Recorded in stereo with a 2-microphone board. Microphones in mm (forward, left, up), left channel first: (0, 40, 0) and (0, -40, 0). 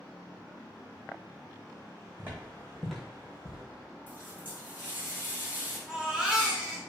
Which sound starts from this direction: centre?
A baby crying, at 5.9 s.